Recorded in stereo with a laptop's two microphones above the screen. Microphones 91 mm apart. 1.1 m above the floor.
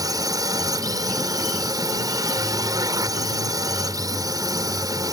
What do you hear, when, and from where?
0.0 s a drone: 40° right (ahead or behind)